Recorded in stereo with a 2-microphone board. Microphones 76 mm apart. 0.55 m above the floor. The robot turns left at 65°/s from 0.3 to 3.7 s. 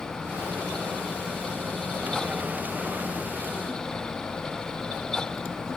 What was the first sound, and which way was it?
Only background noise.